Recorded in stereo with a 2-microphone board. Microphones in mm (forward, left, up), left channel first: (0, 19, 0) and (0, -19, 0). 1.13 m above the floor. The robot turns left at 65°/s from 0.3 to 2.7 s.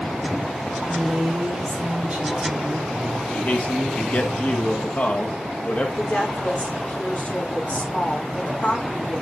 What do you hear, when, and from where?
0.9 s a woman speaking: 40° right, 3 m; by 3.0 s 160° right, 3 m
3.3 s a man speaking: 45° left (ahead or behind), 1.6 m
6.0 s a woman speaking: 45° left (ahead or behind), 3 m